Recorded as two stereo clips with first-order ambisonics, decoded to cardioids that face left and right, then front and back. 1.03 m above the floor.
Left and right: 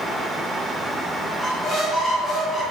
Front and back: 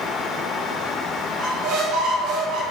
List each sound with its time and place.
1.4 s a squeak: 175° left, 2 m